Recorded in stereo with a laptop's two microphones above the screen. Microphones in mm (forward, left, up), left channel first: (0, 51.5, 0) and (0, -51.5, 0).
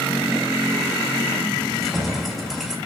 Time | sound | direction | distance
1.6 | keys jangling | centre (ahead or behind) | 2 m